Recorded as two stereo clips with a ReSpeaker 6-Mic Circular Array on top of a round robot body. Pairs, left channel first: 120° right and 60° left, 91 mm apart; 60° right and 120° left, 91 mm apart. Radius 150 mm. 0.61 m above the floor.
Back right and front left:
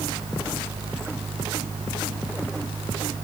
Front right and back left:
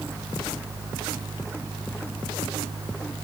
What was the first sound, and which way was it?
Only background noise.